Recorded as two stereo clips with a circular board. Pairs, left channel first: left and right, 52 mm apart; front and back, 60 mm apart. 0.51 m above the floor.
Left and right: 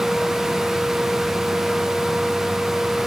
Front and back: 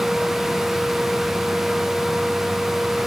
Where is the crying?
No crying in this recording.